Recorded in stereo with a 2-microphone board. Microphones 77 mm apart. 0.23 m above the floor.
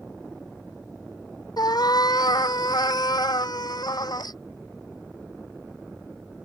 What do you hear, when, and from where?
1.6 s a cat meowing: 70° left (ahead or behind)